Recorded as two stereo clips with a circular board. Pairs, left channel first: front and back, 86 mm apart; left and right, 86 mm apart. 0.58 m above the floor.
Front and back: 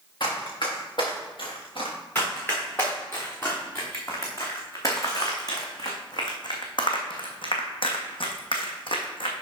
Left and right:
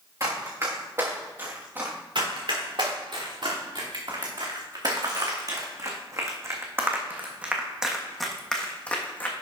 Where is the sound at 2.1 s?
70° right, 3.5 m; by 9.3 s 20° left, 1.7 m.